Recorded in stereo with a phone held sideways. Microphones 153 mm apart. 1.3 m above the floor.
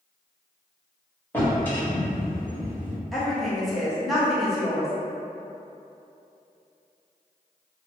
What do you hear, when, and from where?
1.3 s a drawer: 15° left (ahead or behind), 1.3 m
3.1 s a woman speaking: centre (ahead or behind), 0.9 m